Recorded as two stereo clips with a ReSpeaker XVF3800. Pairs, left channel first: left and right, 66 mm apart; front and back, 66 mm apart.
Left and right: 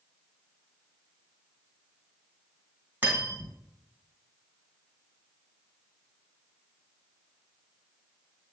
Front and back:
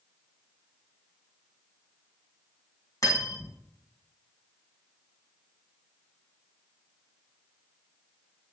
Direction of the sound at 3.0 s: 35° right.